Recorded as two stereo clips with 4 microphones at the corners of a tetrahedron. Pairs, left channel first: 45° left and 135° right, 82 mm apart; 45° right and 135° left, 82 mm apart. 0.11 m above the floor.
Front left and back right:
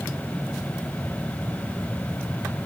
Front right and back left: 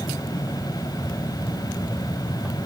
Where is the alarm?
I don't hear an alarm.